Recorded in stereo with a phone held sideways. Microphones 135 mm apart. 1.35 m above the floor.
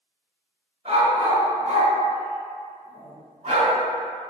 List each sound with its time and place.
0.8 s a dog barking: 45° right (ahead or behind), 1.9 m